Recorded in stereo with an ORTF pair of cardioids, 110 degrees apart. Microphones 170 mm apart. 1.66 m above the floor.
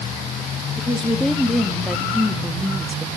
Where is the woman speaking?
5° left, 3 m; by 3.1 s 5° right, 2 m.